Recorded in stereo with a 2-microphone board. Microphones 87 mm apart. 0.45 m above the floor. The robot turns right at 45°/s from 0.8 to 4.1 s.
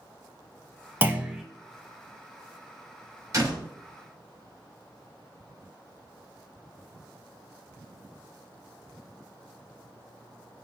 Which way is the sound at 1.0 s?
25° right (ahead or behind).